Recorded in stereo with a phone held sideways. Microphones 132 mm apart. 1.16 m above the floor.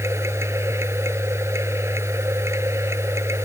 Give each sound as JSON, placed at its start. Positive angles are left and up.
{"t": 0.0, "sound": "a machine running", "side_deg": -20}